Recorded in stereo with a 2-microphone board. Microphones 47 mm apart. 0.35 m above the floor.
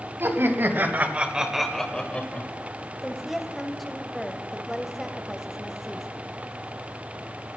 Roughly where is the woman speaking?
Centre.